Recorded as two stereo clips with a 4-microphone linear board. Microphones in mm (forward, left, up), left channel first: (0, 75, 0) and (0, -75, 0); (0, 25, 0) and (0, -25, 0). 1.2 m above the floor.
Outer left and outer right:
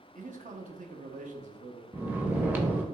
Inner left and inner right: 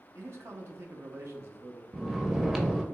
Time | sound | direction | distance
0.1 | a man speaking | 60° right (ahead or behind) | 0.7 m
1.9 | snoring | 10° right (ahead or behind) | 0.7 m